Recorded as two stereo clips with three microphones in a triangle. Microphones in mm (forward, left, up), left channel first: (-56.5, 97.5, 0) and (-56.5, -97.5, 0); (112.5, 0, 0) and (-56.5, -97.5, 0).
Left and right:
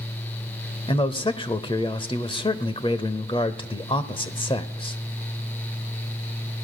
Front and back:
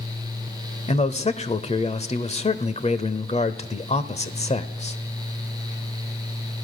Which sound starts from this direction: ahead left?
A man speaking, at 0.9 s.